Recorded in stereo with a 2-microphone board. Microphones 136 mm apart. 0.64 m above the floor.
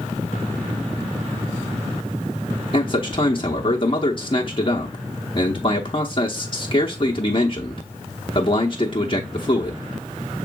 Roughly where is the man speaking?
Left.